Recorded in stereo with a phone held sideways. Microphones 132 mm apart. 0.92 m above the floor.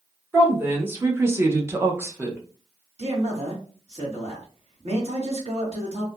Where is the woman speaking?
15° right (ahead or behind), 0.9 m.